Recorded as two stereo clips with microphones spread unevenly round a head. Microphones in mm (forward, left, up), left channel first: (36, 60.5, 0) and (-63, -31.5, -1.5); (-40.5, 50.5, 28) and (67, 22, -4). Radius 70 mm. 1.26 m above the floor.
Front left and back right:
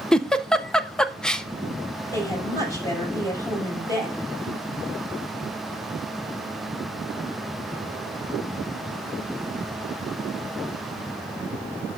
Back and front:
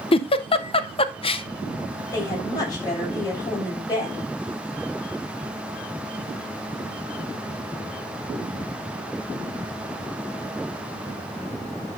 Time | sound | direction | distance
0.1 | a giggle | 125° left | 0.5 m
2.1 | a woman speaking | 110° left | 6 m